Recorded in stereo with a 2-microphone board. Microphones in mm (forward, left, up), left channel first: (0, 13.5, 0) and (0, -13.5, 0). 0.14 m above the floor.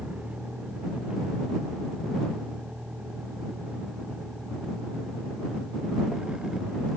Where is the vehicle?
60° right (ahead or behind); by 7.0 s 30° right (ahead or behind).